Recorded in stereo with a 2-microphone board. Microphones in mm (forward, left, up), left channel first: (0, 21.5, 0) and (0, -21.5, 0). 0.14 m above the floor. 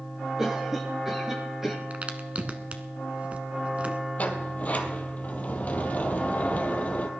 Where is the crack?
30° right (ahead or behind), 1.3 m.